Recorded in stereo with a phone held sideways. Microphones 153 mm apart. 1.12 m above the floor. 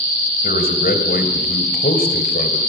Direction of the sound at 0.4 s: 85° left.